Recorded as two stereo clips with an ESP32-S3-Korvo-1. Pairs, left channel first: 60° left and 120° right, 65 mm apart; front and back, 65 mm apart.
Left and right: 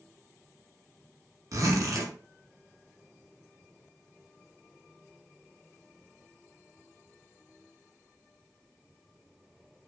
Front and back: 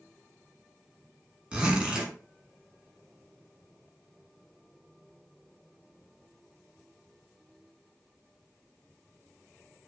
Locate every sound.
1.5 s a zipper: 105° right, 1.1 m